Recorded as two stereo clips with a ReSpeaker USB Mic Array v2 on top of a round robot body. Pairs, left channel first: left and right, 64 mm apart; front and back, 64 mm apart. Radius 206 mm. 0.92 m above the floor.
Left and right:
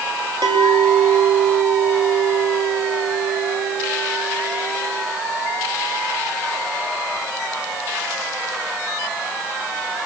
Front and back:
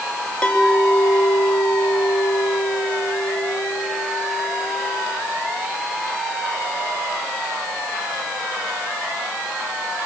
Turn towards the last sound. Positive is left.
turn(degrees=-75)